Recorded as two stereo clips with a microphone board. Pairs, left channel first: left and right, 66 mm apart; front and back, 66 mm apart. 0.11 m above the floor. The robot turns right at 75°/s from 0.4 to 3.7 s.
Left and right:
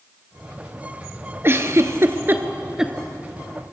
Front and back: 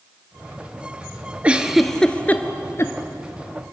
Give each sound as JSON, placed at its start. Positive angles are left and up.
{"t": 1.4, "sound": "a giggle", "azimuth_deg": -120, "distance_m": 1.2}